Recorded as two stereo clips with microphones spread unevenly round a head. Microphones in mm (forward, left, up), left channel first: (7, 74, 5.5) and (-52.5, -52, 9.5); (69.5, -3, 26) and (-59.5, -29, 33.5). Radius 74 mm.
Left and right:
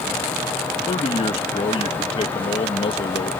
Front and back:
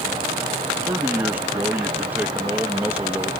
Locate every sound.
0.9 s a man speaking: 115° left